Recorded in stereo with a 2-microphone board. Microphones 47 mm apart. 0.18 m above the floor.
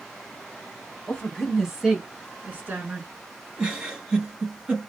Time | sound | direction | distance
1.1 | a woman speaking | 25° left (ahead or behind) | 1.4 m
3.6 | a giggle | 15° right (ahead or behind) | 1.7 m